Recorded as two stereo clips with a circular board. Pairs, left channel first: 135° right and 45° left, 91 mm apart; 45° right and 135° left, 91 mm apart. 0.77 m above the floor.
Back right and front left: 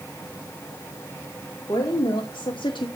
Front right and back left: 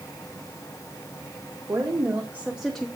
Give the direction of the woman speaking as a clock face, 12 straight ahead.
6 o'clock.